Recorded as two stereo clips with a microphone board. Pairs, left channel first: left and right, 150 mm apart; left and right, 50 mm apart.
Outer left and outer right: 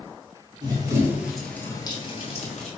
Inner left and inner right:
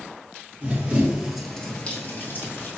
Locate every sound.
0.6 s running footsteps: 30° right (ahead or behind), 1.2 m; by 2.7 s 55° left (ahead or behind), 1.4 m